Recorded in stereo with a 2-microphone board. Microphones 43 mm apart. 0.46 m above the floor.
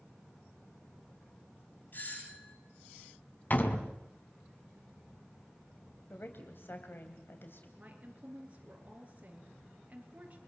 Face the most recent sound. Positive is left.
turn(degrees=-35)  # may be behind; listen again after turning